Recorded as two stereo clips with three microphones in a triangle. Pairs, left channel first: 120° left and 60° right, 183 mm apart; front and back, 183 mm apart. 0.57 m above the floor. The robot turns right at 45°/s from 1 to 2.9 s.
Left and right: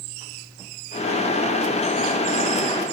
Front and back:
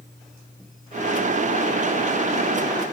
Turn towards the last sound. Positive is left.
No sound to turn to.